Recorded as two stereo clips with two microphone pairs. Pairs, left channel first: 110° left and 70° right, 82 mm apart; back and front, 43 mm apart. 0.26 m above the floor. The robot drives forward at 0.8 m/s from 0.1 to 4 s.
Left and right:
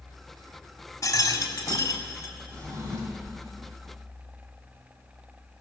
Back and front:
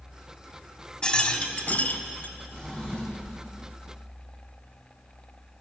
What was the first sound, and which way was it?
A rattle, 125° left.